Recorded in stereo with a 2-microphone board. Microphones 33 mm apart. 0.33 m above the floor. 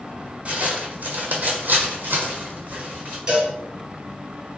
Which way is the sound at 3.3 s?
25° right (ahead or behind).